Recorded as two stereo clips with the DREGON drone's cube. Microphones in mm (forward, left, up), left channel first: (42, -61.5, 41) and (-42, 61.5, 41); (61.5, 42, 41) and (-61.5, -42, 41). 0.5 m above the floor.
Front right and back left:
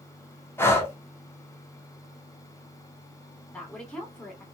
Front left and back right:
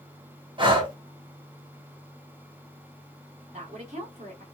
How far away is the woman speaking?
About 2.0 m.